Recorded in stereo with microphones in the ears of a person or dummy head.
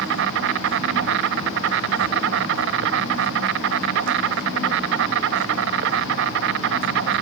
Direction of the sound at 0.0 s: 70° right (ahead or behind).